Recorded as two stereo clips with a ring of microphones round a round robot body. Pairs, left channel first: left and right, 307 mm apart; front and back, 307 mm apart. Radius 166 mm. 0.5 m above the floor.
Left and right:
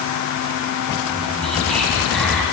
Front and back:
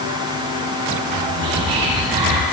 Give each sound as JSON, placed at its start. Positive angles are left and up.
{"t": 1.0, "sound": "whispering", "azimuth_deg": 180, "distance_m": 3.0}